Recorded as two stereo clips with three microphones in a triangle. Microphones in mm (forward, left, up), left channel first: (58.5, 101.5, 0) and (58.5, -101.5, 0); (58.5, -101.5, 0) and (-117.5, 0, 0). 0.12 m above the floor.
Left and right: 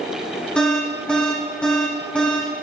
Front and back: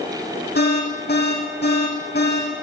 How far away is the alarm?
About 7.5 m.